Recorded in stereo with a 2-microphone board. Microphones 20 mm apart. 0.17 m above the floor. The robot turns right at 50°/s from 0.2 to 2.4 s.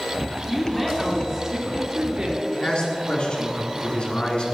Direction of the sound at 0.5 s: 165° left.